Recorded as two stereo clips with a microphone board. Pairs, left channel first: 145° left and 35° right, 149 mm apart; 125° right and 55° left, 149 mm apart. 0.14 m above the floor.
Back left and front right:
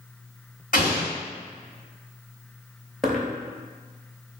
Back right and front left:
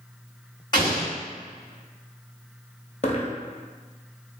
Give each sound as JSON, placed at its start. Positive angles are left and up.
{"t": 0.7, "sound": "an explosion", "azimuth_deg": 175, "distance_m": 2.0}
{"t": 3.0, "sound": "a dropped coin", "azimuth_deg": -125, "distance_m": 0.7}